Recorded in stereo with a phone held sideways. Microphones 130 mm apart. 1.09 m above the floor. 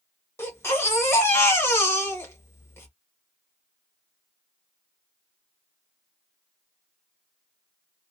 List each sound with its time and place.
0.4 s a baby crying: 20° left (ahead or behind), 1.0 m